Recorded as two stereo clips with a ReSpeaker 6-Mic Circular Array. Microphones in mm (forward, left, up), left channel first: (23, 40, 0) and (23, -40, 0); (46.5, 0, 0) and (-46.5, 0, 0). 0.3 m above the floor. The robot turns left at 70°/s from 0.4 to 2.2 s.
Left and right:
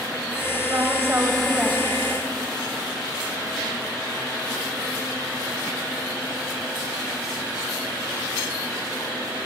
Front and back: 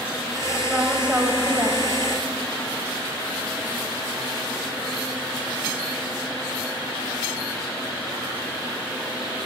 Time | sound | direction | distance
0.7 | a woman speaking | 90° right | 1.6 m